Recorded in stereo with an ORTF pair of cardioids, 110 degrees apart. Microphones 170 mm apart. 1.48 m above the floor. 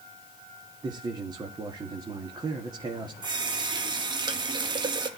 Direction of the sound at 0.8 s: 25° right.